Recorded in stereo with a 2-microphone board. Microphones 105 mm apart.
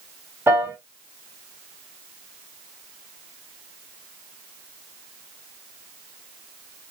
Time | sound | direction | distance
0.5 | a piano | 25° right (ahead or behind) | 2.5 m